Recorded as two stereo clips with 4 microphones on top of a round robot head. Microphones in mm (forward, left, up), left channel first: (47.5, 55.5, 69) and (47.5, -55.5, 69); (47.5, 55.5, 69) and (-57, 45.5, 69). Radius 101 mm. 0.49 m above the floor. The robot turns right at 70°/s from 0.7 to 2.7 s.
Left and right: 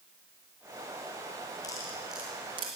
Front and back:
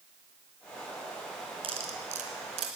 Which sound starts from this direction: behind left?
Cutlery clinking, at 1.6 s.